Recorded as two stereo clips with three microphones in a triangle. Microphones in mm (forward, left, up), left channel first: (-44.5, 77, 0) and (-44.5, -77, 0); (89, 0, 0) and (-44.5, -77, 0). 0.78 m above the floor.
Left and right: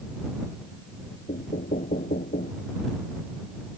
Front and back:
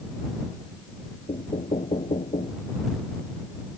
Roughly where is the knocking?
Left.